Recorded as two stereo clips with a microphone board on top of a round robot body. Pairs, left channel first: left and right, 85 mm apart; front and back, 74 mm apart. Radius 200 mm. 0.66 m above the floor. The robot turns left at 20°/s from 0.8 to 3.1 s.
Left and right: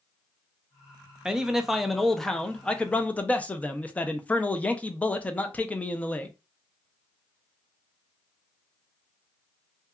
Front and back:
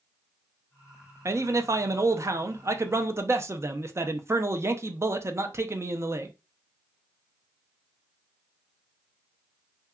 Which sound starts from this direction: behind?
A man speaking, at 1.2 s.